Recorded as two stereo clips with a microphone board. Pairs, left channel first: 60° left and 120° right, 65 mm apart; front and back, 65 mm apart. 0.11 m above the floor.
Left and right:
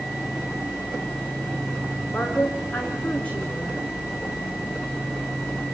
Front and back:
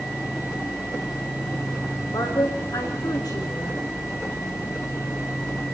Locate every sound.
2.1 s a woman speaking: 10° right, 6.5 m